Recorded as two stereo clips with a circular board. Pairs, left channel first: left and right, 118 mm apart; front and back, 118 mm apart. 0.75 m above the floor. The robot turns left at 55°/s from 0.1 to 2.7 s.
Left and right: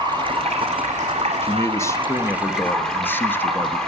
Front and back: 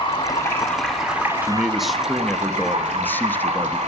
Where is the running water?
40° right, 2 m; by 3.9 s 175° left, 2 m.